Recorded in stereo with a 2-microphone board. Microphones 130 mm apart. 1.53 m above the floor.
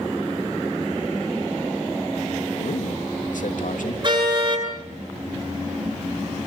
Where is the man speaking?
85° left, 3 m.